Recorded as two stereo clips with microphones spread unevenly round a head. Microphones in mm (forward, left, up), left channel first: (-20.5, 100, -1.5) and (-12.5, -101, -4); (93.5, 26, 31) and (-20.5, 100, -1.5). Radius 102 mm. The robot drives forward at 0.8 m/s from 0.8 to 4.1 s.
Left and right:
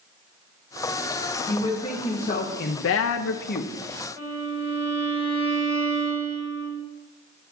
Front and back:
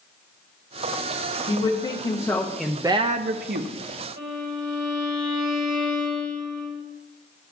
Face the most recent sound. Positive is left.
turn(degrees=165)